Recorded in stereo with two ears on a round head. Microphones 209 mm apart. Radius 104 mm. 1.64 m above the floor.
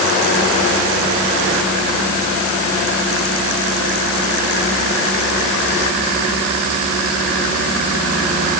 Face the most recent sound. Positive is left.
No sound to turn to.